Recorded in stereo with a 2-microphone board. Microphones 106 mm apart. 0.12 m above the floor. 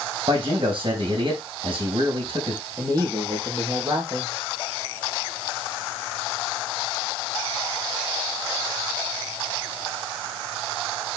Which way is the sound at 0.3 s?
55° right (ahead or behind).